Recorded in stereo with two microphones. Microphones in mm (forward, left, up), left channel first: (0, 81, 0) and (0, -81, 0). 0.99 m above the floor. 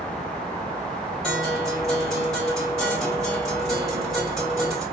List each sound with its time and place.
1.2 s a guitar: centre (ahead or behind), 2.5 m